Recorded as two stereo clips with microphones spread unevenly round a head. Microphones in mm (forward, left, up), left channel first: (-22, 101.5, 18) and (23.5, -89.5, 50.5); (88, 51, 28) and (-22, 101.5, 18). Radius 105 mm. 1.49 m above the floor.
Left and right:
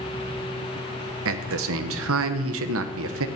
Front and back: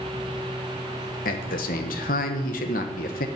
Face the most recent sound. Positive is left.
turn(degrees=-55)